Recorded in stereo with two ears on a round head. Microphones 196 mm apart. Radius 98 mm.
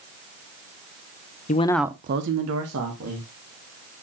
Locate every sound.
1.5 s a man speaking: 35° left (ahead or behind), 0.7 m; by 3.3 s 85° right, 1.9 m